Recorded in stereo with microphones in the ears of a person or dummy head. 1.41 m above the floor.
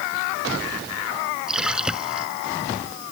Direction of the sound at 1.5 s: 5° right (ahead or behind).